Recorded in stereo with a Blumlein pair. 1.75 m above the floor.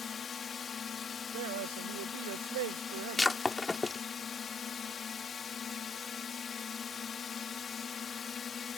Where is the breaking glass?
10° left.